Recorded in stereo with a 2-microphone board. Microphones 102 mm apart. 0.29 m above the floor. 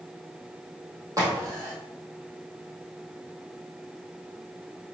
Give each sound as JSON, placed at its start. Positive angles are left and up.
{"t": 1.2, "sound": "a crack", "side_deg": -35, "distance_m": 3.0}